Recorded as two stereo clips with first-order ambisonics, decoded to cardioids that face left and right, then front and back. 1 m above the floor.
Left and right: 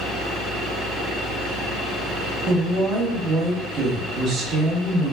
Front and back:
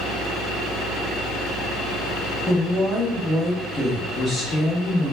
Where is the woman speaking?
70° right, 0.8 m.